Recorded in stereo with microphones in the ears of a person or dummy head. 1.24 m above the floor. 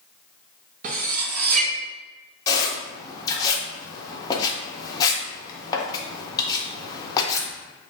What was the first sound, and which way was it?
Cutlery clinking, 45° right (ahead or behind).